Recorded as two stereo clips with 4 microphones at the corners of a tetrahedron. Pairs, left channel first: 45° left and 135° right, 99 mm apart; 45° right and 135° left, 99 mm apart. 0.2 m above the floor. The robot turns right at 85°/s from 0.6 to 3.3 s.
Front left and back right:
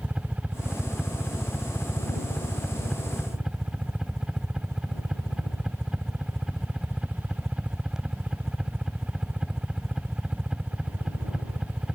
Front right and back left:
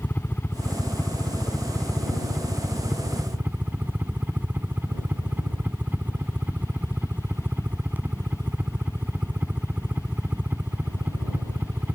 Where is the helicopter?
75° right; by 12.0 s 155° left.